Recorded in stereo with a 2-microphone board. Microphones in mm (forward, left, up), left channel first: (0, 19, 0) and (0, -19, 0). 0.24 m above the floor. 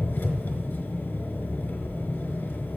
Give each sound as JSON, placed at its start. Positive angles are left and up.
{"t": 0.0, "sound": "an engine running", "side_deg": 65, "distance_m": 0.9}